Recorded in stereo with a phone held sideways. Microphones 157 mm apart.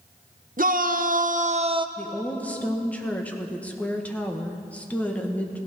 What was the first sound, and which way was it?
A shout, 60° right (ahead or behind).